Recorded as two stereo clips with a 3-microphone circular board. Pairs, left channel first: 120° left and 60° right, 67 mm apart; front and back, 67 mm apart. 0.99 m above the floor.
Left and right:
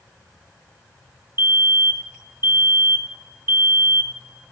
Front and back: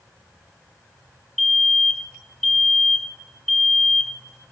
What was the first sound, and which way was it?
A fire alarm, 80° right.